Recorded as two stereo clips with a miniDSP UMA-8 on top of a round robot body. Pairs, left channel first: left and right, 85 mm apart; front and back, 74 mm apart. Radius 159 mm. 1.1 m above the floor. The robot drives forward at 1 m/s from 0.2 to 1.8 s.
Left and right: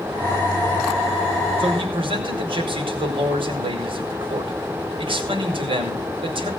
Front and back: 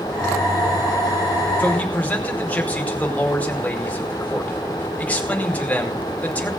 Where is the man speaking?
70° right, 5 m; by 6.5 s 75° right, 5 m.